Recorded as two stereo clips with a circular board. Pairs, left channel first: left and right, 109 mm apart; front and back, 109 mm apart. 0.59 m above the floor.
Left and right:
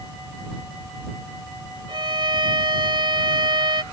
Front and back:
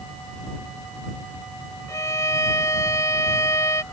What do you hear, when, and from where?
1.9 s a violin: 55° right